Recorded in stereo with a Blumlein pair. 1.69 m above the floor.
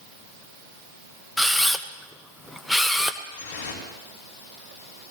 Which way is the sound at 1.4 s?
5° left.